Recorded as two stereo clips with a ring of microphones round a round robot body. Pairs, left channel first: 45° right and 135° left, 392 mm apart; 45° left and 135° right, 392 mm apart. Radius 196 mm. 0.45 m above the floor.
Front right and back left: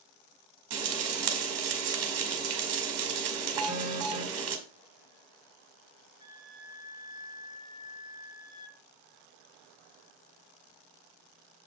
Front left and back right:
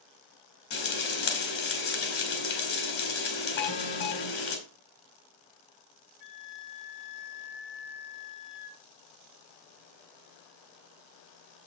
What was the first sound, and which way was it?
Frying, 90° left.